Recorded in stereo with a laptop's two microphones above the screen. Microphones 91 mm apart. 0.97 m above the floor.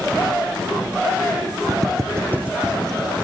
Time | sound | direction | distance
1.7 | footsteps | 45° right (ahead or behind) | 1.3 m